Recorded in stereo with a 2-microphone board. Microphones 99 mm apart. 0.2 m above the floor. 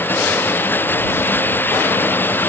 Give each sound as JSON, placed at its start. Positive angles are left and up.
{"t": 0.0, "sound": "running water", "side_deg": 20}